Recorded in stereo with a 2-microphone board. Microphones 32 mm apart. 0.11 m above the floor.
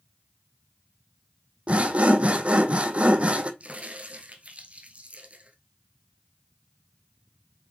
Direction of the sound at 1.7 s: 35° right (ahead or behind).